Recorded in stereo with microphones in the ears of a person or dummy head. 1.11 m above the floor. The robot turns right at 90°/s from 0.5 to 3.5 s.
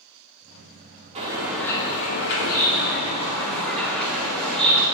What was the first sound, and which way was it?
A bird, 35° right.